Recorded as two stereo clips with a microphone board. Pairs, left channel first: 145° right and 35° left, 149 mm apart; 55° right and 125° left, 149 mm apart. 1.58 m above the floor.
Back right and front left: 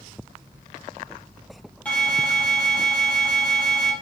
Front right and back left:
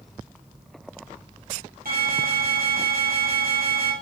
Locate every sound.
1.9 s an alarm: 135° left, 3.5 m